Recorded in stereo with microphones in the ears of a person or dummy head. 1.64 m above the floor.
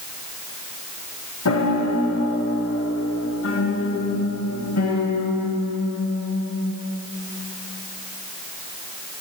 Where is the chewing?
I don't hear chewing.